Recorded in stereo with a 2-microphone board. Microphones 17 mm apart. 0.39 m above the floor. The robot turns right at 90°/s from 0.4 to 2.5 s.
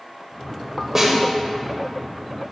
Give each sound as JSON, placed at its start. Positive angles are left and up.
{"t": 0.9, "sound": "a snare drum", "side_deg": -20, "distance_m": 1.4}